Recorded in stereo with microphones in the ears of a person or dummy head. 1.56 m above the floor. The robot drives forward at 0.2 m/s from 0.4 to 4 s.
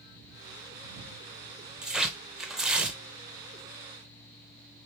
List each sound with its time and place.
1.8 s tearing paper: 5° right (ahead or behind), 0.7 m